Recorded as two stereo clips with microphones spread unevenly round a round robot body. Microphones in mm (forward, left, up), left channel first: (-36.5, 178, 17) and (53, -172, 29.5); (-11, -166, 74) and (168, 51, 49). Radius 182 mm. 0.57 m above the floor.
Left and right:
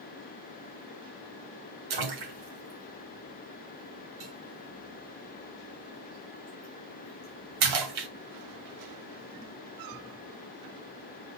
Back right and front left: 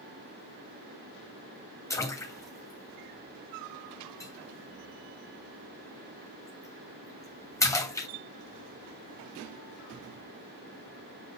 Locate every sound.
1.9 s a splash: 50° right, 2.5 m